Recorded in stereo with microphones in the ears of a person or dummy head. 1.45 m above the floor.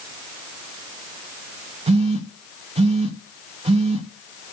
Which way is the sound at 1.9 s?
30° right (ahead or behind).